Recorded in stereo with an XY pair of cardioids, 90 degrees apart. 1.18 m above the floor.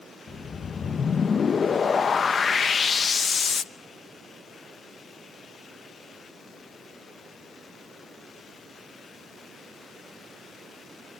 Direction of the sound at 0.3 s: 50° left.